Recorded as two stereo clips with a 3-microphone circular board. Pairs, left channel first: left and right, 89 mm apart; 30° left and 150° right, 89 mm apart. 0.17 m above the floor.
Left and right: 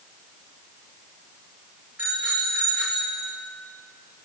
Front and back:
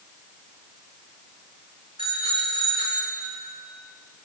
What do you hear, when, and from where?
2.0 s a bicycle bell: 160° right, 9.5 m